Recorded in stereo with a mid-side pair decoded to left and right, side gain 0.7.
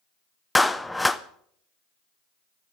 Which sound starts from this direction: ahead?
A clap, at 0.6 s.